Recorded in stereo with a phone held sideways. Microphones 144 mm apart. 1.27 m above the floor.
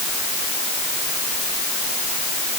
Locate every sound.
Only background noise.